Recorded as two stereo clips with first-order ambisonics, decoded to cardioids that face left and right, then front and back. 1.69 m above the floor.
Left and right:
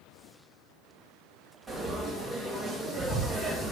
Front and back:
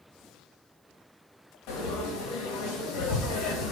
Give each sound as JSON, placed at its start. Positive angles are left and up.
{"t": 1.7, "sound": "frying", "azimuth_deg": 0, "distance_m": 3.0}